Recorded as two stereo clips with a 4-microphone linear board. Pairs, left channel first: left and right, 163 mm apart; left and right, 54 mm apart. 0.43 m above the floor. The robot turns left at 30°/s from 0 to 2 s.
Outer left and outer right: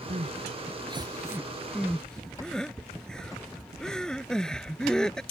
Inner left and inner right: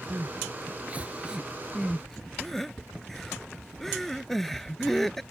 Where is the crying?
50° right (ahead or behind); by 5.2 s 5° left (ahead or behind).